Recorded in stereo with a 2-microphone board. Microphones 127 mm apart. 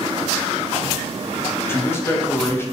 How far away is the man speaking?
About 0.6 m.